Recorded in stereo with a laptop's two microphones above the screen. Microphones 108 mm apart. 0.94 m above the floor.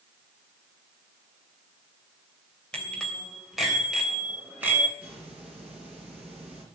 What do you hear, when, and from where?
2.7 s a bicycle bell: 10° left (ahead or behind), 3 m; by 4.9 s 20° right (ahead or behind), 3.5 m
5.0 s a hiss: 10° right (ahead or behind), 5 m